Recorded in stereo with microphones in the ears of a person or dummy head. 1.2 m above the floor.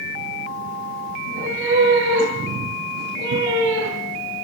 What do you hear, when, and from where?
1.2 s a cat meowing: 85° right, 7 m